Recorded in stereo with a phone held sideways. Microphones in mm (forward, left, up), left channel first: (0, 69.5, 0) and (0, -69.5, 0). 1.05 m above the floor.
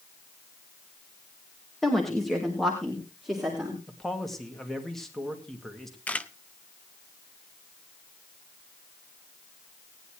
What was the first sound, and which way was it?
A woman speaking, 5° left (ahead or behind).